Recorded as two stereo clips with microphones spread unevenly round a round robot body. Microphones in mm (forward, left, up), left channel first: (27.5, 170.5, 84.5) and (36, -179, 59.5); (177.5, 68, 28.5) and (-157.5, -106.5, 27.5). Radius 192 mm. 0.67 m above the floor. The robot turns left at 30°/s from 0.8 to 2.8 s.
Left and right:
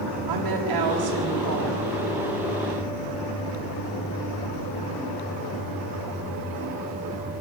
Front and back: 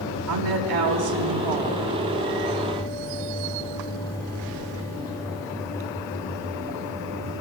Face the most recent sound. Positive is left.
turn(degrees=180)